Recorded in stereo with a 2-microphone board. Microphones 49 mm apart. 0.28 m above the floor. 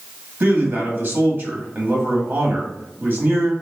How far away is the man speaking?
About 1.5 m.